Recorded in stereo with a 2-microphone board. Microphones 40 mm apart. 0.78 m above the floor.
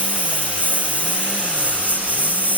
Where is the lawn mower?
35° right (ahead or behind); by 2.6 s 45° right (ahead or behind).